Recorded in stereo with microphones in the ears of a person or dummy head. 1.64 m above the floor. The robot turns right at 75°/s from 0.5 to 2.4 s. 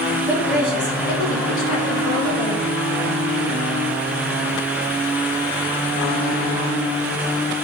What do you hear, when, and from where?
0.3 s a woman speaking: 20° right, 3 m; by 2.6 s 125° left, 3 m